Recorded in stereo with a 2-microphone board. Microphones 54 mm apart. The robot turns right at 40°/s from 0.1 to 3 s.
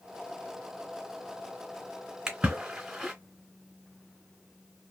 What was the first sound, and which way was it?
A splash, 10° right (ahead or behind).